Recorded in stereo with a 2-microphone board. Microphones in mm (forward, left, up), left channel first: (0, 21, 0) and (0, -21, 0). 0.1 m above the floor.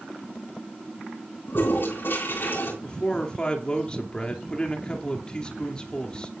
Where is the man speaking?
20° left (ahead or behind), 2 m.